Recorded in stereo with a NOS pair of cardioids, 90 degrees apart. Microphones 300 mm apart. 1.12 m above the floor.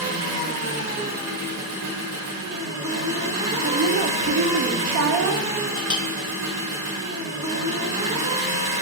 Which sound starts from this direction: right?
A woman speaking, at 3.6 s.